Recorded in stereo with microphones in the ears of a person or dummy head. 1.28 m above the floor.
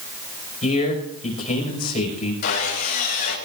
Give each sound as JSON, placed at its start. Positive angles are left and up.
{"t": 0.6, "sound": "a man speaking", "side_deg": 45, "distance_m": 6.0}
{"t": 2.4, "sound": "sawing", "side_deg": 55, "distance_m": 5.5}